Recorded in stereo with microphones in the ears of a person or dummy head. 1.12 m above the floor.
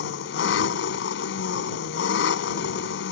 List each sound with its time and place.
0.0 s an engine running: 65° left (ahead or behind)